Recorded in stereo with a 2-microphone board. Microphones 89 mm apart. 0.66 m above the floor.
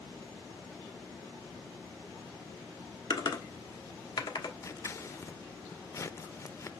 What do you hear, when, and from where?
3.1 s typing on a keyboard: 50° left (ahead or behind), 1.2 m
4.6 s scissors: 35° left (ahead or behind), 0.5 m